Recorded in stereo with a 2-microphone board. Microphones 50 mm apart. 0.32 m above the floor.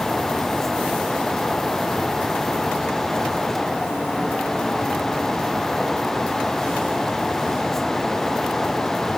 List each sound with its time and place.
Only background noise.